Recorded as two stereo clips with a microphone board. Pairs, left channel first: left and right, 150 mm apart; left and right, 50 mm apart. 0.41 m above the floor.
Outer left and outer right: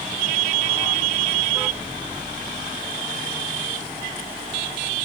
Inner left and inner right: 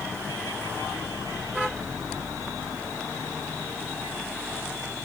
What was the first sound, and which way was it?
Only background noise.